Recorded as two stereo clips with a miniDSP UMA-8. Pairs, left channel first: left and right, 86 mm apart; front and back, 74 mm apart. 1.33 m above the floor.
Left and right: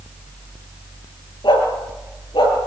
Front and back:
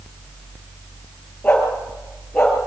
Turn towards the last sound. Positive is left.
turn(degrees=80)